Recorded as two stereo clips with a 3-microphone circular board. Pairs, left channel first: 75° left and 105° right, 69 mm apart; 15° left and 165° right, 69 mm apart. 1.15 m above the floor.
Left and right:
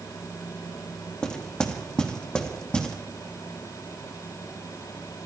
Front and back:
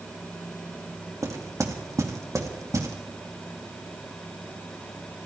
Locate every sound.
1.2 s knocking: 150° left, 2 m